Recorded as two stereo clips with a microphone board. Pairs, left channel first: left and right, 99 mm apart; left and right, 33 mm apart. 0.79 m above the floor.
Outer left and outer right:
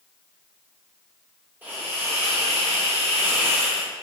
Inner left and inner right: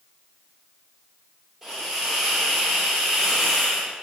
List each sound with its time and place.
1.6 s a hiss: 20° right (ahead or behind), 1.8 m